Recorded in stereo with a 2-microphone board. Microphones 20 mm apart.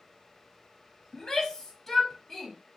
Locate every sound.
1.1 s a shout: 35° left (ahead or behind), 1.2 m; by 2.5 s 10° left (ahead or behind), 1.1 m